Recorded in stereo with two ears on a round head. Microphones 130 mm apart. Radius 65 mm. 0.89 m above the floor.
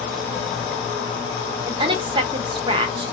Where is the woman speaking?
35° right (ahead or behind), 0.7 m.